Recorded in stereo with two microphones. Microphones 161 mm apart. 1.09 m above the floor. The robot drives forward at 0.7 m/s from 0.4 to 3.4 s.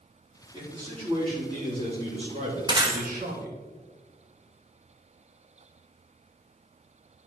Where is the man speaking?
30° right (ahead or behind), 3.5 m; by 3.6 s 60° right (ahead or behind), 2 m.